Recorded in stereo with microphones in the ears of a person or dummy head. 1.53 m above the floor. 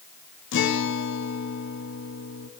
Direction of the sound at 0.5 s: 65° left (ahead or behind).